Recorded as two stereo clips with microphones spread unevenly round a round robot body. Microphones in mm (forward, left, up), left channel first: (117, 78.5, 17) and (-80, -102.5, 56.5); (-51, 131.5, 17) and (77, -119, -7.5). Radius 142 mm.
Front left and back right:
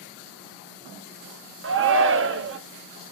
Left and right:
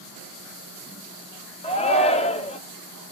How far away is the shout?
About 0.8 m.